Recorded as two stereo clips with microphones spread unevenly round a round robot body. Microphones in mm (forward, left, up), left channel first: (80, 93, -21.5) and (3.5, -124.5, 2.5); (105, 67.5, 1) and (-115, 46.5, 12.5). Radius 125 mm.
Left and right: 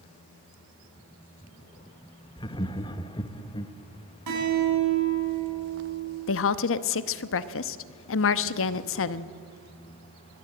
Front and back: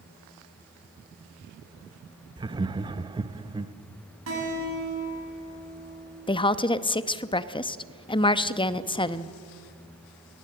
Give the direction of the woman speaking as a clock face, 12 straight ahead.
10 o'clock.